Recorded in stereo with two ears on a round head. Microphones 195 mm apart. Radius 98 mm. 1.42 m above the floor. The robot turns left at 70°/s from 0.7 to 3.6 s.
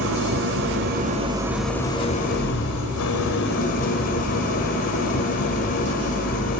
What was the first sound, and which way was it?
An engine running, 115° right.